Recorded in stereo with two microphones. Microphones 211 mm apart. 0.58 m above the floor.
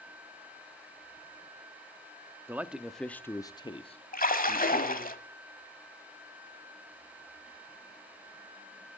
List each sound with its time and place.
2.5 s a man speaking: 10° right (ahead or behind), 0.7 m; by 5.1 s 35° left (ahead or behind), 1.2 m
4.1 s a splash: 40° left (ahead or behind), 1.4 m